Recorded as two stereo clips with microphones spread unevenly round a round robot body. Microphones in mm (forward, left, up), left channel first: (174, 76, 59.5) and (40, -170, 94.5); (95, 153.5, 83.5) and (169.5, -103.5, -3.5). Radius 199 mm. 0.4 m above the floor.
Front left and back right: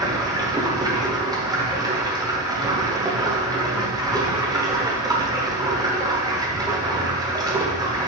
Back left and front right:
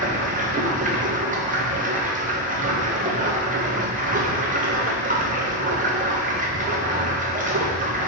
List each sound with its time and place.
0.0 s running water: 35° right, 1.0 m